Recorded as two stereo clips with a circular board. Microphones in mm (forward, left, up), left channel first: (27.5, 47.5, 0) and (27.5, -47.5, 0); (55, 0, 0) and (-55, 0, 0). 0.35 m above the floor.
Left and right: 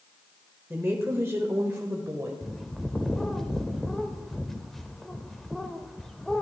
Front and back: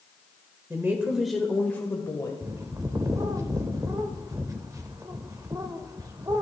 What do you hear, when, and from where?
0.7 s a woman speaking: 140° right, 1.0 m; by 2.3 s 35° right, 1.2 m
2.4 s a bird: 175° left, 0.7 m